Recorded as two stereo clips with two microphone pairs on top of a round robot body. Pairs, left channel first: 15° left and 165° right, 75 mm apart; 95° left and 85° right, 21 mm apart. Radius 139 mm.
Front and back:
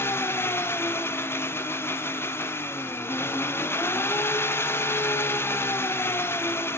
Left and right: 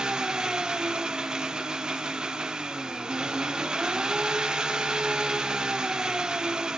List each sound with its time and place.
0.0 s an engine running: 35° right, 1.7 m